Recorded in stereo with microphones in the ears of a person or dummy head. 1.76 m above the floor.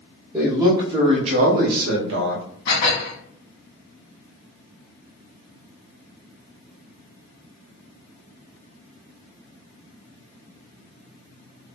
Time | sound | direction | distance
0.3 | a man speaking | 10° right (ahead or behind) | 0.9 m
2.7 | dishes clattering | 50° left (ahead or behind) | 1.6 m